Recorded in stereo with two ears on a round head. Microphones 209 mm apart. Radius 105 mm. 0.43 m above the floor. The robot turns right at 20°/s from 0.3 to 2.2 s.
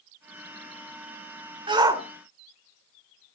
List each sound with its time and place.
1.7 s a shout: 20° right (ahead or behind), 1.2 m; by 2.0 s 15° right (ahead or behind), 1.2 m